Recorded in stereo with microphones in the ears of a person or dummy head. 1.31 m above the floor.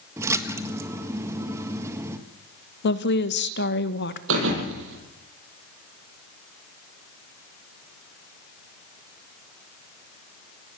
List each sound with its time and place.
0.2 s a splash: 10° right (ahead or behind), 1.5 m
2.8 s a woman speaking: 60° left (ahead or behind), 1.3 m
4.3 s a thud: 70° right (ahead or behind), 7 m